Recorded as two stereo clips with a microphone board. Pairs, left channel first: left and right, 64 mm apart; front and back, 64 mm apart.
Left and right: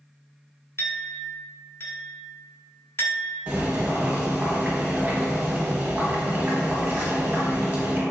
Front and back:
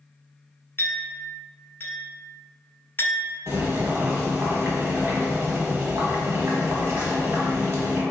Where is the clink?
50° left, 0.8 m.